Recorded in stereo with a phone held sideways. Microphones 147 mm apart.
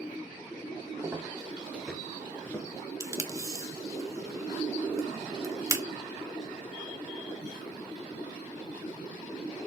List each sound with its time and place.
1.0 s footsteps: 20° right (ahead or behind), 1.3 m; by 4.0 s 45° left (ahead or behind), 1.5 m
3.0 s tape being pulled: 20° right (ahead or behind), 1.2 m